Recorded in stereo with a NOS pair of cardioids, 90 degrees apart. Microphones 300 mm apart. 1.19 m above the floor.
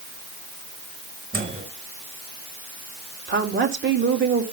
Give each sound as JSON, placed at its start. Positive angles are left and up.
{"t": 1.3, "sound": "a microwave", "azimuth_deg": -25, "distance_m": 5.0}
{"t": 3.3, "sound": "a woman speaking", "azimuth_deg": -40, "distance_m": 3.0}